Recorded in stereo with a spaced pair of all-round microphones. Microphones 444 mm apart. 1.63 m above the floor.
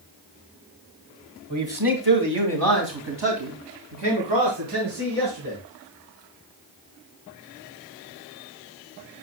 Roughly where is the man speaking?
Right.